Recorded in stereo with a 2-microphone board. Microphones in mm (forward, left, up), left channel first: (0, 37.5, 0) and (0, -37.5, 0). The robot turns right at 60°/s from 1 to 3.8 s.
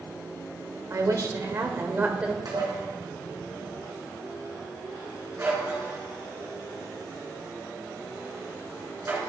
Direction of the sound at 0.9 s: 95° right.